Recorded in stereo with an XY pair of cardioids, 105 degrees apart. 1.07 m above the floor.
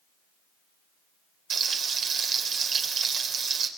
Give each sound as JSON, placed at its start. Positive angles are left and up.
{"t": 1.5, "sound": "frying", "azimuth_deg": -55, "distance_m": 3.5}